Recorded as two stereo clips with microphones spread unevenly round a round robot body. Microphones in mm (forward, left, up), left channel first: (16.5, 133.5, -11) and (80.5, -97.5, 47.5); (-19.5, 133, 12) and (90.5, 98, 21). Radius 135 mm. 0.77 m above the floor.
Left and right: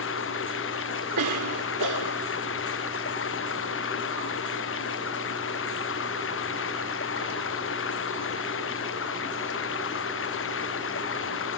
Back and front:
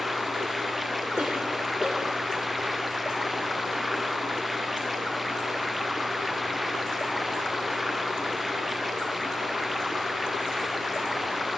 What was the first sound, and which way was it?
Running water, 70° left.